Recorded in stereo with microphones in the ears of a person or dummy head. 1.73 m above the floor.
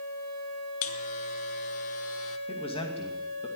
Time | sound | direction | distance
0.8 | a buzzer | 45° left (ahead or behind) | 1.2 m
2.5 | a man speaking | 25° left (ahead or behind) | 2.5 m